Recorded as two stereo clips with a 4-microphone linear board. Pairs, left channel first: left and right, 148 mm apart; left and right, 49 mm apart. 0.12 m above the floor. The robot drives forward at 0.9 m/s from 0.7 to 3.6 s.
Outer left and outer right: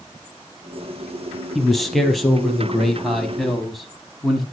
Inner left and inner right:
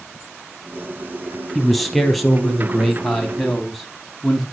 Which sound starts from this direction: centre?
A man speaking, at 1.6 s.